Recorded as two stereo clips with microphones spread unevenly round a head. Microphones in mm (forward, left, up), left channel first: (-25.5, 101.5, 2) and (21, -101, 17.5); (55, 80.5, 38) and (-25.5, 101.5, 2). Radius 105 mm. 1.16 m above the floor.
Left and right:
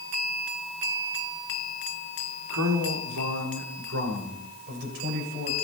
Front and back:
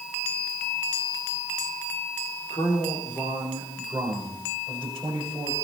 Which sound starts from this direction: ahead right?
A man speaking, at 2.5 s.